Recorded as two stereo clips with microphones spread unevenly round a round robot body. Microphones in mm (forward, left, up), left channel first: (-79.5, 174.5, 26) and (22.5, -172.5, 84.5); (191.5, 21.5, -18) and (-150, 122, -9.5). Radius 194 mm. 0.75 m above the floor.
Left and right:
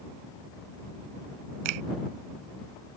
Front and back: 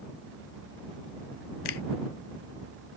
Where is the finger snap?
55° right.